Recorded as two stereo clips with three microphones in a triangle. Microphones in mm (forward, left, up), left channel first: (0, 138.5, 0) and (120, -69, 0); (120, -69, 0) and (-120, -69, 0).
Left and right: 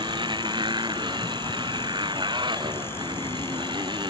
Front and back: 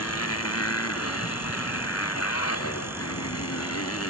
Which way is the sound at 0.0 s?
10° left.